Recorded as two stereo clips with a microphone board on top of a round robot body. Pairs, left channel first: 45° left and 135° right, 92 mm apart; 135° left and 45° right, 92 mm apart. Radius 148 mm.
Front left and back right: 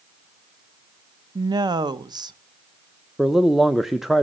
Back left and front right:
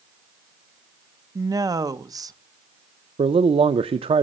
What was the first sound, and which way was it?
A woman speaking, 95° right.